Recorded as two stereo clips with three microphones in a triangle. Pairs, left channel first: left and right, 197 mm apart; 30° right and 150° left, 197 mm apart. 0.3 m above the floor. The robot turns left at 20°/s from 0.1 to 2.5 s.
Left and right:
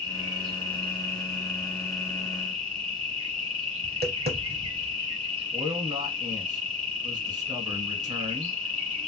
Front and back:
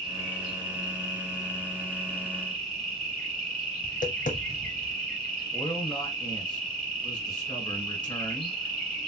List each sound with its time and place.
0.0 s an insect: 60° right, 2.5 m; by 9.1 s 110° right, 2.5 m
3.8 s tapping: 70° right, 0.7 m
5.5 s a man speaking: 55° right, 1.1 m